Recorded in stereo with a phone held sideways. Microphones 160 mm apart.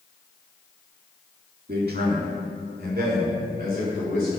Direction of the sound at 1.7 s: 75° right (ahead or behind).